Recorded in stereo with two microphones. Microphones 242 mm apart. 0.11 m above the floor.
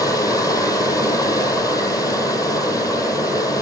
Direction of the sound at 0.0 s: 15° left (ahead or behind).